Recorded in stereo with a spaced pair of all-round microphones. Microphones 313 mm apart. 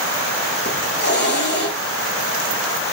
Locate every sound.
0.7 s a hiss: 35° left (ahead or behind), 7.5 m